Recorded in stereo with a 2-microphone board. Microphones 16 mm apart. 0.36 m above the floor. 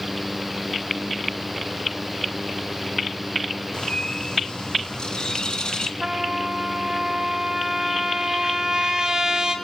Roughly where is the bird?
Left.